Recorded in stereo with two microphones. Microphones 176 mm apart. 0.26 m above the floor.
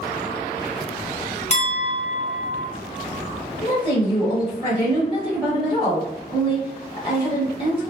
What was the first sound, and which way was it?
A clink, 45° left (ahead or behind).